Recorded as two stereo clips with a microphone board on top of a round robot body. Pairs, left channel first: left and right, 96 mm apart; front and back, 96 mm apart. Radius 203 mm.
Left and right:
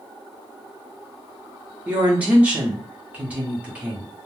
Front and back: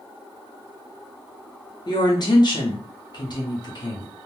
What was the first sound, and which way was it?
A woman speaking, 20° right.